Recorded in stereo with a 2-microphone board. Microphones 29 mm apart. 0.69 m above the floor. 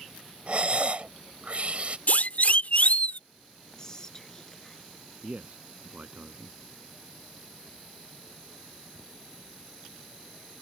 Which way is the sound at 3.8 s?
20° left (ahead or behind).